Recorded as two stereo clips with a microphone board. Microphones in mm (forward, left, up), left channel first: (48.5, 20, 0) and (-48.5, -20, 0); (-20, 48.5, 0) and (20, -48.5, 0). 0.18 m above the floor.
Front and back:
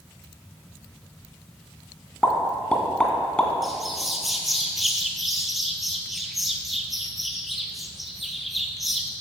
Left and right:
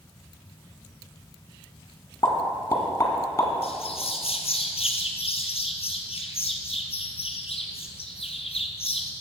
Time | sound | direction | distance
2.2 | a pop | 95° left | 1.8 m
3.6 | a bird | 115° left | 1.3 m